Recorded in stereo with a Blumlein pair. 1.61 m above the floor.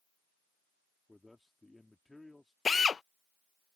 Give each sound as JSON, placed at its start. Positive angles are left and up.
{"t": 1.1, "sound": "a man speaking", "azimuth_deg": 5}
{"t": 2.6, "sound": "a drill", "azimuth_deg": 15}